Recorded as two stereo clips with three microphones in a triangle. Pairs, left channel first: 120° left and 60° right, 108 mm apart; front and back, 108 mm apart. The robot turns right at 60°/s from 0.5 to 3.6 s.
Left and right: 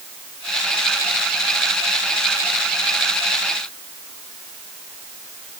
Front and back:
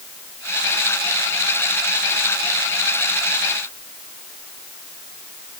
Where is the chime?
I don't hear a chime.